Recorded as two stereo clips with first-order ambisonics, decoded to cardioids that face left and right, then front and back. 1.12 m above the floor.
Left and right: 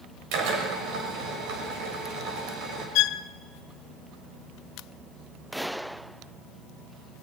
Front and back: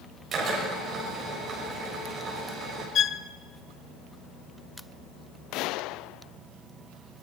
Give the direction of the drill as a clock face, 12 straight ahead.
4 o'clock.